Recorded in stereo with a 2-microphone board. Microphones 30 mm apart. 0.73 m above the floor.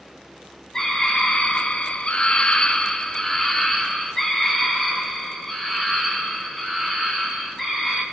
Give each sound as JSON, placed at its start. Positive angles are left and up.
{"t": 0.7, "sound": "a scream", "side_deg": 25, "distance_m": 0.8}